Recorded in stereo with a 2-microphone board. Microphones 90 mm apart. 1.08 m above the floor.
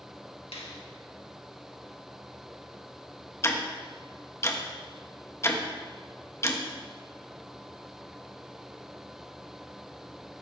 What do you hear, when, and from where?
0.5 s a finger snap: 85° left, 1.5 m
3.4 s ticking: 30° left (ahead or behind), 1.2 m